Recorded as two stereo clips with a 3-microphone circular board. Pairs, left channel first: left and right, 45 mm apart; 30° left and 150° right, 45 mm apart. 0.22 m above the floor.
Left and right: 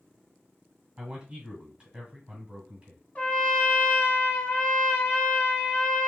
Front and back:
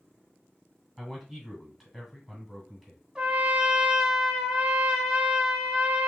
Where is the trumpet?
140° left, 0.8 m.